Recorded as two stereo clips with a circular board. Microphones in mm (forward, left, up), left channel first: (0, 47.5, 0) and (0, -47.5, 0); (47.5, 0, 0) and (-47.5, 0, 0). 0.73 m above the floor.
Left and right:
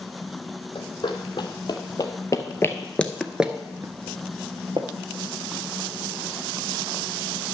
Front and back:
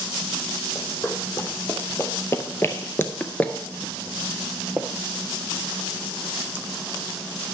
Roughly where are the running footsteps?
Ahead left.